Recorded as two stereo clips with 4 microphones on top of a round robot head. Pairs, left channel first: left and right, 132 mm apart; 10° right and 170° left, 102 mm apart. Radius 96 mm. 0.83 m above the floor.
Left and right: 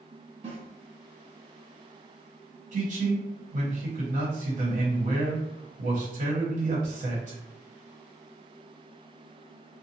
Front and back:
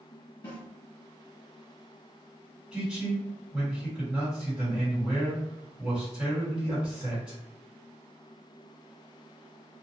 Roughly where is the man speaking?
Right.